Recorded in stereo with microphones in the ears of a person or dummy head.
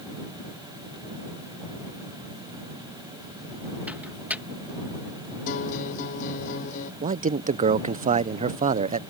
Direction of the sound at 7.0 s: 35° right (ahead or behind).